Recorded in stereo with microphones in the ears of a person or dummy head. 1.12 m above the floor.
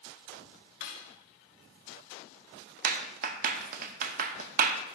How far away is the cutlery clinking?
About 1.3 m.